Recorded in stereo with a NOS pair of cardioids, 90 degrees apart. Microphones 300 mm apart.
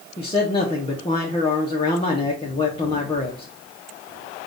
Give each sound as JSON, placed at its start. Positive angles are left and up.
{"t": 0.2, "sound": "a man speaking", "azimuth_deg": 20, "distance_m": 1.0}